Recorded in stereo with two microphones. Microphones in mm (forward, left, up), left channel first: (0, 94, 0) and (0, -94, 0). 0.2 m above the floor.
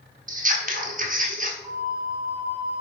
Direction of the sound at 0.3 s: 45° right (ahead or behind).